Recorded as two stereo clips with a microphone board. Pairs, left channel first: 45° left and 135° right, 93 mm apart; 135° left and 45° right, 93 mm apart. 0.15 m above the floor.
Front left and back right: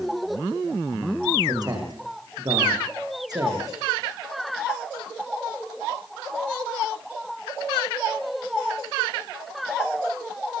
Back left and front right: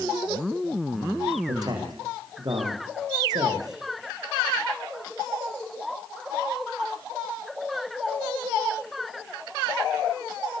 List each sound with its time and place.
1.5 s a man speaking: 90° right, 9 m